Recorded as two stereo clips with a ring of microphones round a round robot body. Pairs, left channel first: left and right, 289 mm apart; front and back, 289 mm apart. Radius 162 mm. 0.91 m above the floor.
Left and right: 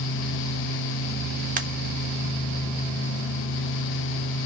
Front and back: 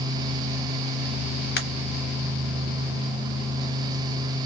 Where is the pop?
40° right, 0.7 m.